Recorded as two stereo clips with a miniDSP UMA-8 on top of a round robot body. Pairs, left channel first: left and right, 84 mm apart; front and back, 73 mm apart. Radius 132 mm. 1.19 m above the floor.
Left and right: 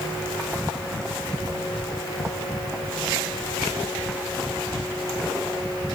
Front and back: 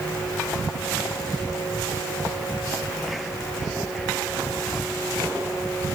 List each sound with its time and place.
Only background noise.